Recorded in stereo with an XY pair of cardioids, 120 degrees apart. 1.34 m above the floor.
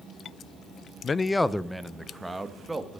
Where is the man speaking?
35° left, 0.5 m; by 3.0 s 10° right, 2 m.